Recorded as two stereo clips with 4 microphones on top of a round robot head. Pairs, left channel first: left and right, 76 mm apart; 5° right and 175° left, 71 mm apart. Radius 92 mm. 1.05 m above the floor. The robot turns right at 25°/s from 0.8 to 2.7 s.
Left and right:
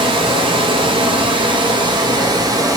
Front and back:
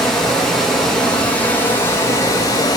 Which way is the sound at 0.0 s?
90° right.